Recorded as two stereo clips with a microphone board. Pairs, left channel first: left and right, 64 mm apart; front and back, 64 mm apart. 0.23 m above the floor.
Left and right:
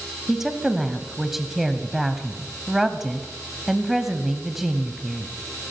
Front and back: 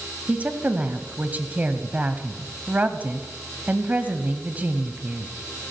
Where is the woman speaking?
170° right, 1.0 m.